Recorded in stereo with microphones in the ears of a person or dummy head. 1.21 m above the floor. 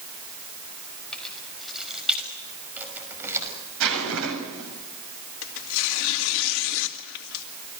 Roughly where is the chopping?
No chopping in this recording.